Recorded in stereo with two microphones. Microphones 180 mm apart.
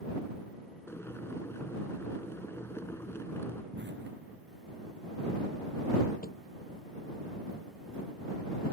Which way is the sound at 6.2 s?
55° left (ahead or behind).